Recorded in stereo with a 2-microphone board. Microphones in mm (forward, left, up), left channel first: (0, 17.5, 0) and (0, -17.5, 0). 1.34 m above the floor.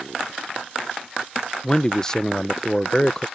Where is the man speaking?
20° left (ahead or behind).